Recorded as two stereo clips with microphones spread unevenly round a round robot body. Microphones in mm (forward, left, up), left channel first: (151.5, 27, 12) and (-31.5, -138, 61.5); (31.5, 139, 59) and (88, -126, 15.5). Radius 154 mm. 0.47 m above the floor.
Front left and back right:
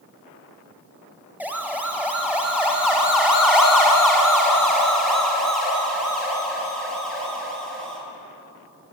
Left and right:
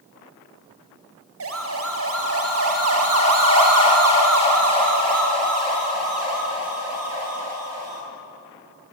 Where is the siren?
50° right, 3.5 m; by 8.0 s 45° right, 9.5 m.